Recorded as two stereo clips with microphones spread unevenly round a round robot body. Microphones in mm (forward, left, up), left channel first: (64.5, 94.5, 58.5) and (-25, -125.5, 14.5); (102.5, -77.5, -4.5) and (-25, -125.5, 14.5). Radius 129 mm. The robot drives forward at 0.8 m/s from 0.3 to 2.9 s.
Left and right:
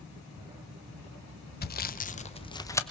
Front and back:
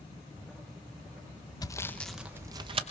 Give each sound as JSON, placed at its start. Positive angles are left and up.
{"t": 1.6, "sound": "sawing", "azimuth_deg": 30, "distance_m": 0.9}